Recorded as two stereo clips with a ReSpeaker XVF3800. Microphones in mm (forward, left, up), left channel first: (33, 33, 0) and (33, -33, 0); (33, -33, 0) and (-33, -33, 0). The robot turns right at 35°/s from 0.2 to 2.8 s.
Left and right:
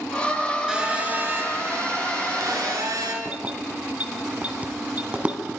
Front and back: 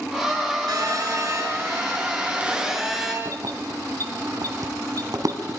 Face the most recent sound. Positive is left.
turn(degrees=-155)